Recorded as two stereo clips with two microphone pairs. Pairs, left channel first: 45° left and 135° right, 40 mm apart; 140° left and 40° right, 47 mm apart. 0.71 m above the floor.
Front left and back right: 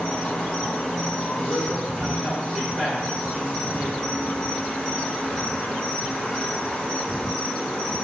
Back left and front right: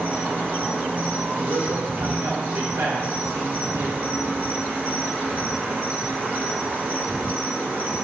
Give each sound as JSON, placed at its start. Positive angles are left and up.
{"t": 0.0, "sound": "an insect", "azimuth_deg": -10, "distance_m": 1.9}
{"t": 1.4, "sound": "a man speaking", "azimuth_deg": -45, "distance_m": 1.7}